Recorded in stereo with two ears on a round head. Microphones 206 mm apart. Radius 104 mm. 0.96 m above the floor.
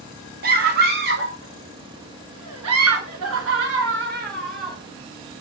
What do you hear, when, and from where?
0.4 s a scream: 40° right (ahead or behind), 2 m; by 4.8 s 35° right (ahead or behind), 1.8 m